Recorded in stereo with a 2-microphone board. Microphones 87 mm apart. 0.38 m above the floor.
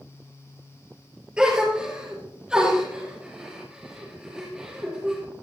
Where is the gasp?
10° right (ahead or behind), 3.5 m.